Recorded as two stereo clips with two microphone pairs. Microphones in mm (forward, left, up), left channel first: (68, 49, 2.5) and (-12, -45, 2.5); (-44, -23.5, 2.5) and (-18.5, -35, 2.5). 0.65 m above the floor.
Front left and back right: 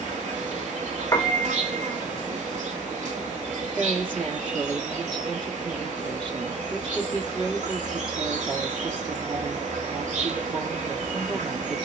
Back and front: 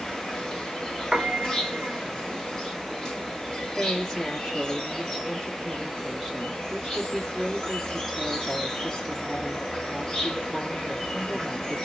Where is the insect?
140° right, 1.2 m.